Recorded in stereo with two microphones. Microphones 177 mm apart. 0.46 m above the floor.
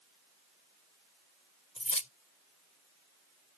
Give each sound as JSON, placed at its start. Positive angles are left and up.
{"t": 1.8, "sound": "keys jangling", "side_deg": 40}